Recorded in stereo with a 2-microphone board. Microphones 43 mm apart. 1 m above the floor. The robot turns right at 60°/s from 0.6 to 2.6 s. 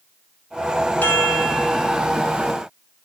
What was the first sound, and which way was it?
A chime, 135° left.